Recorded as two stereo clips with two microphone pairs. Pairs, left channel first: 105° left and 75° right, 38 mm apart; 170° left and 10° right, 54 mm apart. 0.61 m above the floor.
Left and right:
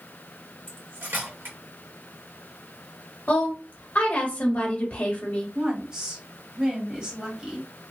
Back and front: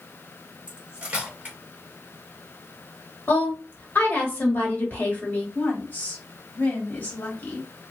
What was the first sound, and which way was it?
Cutlery clinking, 70° right.